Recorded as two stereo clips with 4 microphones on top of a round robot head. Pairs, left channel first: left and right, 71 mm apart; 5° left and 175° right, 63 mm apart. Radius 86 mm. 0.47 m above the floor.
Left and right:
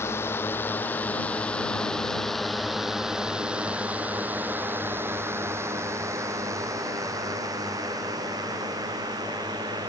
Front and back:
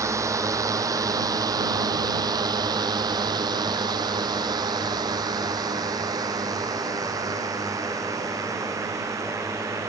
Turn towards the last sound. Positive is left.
turn(degrees=-125)